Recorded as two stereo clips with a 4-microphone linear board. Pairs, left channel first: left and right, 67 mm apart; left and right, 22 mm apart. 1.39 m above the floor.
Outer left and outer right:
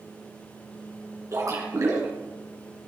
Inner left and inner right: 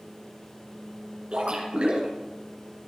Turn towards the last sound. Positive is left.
turn(degrees=-50)  # may be behind; listen again after turning